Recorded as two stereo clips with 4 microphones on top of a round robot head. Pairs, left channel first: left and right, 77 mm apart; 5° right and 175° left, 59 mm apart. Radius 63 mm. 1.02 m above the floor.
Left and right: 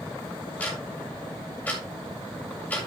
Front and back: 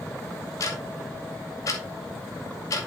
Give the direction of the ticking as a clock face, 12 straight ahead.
11 o'clock.